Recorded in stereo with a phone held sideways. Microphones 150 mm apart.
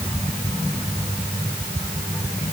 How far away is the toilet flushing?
I don't hear a toilet flushing.